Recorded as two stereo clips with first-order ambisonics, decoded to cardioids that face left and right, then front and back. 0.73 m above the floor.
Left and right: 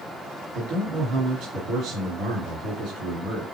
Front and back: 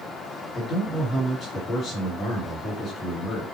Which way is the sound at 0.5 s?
55° right.